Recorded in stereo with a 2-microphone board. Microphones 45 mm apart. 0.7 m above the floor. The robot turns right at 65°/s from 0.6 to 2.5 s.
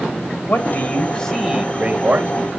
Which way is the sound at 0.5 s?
130° left.